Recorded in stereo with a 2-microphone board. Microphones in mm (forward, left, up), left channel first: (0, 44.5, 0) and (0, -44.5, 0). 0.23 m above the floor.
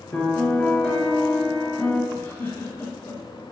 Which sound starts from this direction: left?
A giggle, at 2.1 s.